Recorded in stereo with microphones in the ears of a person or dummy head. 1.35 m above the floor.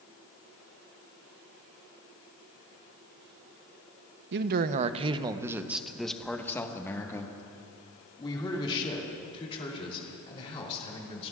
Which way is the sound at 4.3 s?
55° right (ahead or behind).